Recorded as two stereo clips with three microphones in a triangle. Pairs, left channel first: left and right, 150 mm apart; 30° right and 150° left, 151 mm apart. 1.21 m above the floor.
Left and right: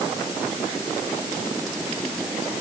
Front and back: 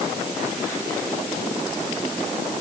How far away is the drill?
I don't hear a drill.